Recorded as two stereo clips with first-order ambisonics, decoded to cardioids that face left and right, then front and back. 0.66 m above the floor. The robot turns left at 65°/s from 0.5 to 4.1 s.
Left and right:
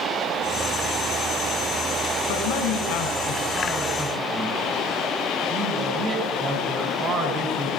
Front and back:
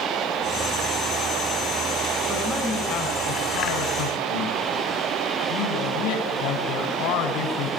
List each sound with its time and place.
2.3 s a man speaking: 95° left, 7 m; by 7.7 s 25° right, 7 m